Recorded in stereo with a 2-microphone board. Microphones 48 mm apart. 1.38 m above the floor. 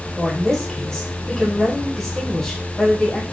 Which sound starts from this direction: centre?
A woman speaking, at 0.2 s.